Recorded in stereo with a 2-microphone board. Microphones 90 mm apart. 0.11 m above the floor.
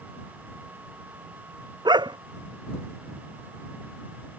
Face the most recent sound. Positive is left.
turn(degrees=-55)  # may be behind; listen again after turning